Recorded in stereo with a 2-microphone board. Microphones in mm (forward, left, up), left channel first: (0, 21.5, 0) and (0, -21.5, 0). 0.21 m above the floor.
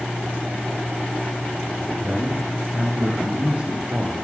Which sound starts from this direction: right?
A man speaking, at 2.0 s.